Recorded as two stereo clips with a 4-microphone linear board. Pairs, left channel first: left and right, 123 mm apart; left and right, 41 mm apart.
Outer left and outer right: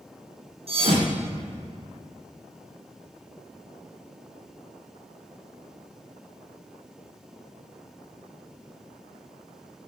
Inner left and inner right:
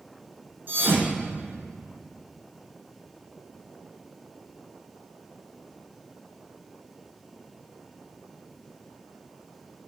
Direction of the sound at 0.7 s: 55° right (ahead or behind).